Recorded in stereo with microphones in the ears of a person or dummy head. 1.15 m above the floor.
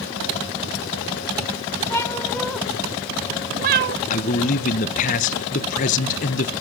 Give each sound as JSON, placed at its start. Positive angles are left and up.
{"t": 1.9, "sound": "a cat meowing", "side_deg": 15, "distance_m": 1.2}
{"t": 4.1, "sound": "a man speaking", "side_deg": 40, "distance_m": 0.9}